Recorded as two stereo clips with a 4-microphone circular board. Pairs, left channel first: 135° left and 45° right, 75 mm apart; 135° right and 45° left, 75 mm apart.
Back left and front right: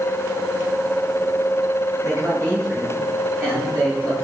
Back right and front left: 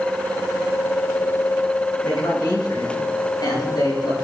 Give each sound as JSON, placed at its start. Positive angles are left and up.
{"t": 2.0, "sound": "a man speaking", "azimuth_deg": -95, "distance_m": 9.0}